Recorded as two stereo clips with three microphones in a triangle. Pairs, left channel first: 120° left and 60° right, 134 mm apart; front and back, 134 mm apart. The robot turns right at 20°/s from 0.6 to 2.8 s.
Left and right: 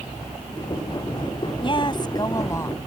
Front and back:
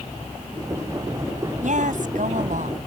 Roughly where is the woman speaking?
Behind.